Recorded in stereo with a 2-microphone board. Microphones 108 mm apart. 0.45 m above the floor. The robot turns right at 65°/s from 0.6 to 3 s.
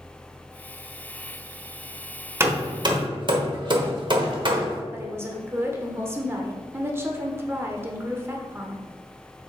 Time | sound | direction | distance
2.4 | hammering | 25° right (ahead or behind) | 1.2 m
4.9 | a woman speaking | 25° right (ahead or behind) | 1.1 m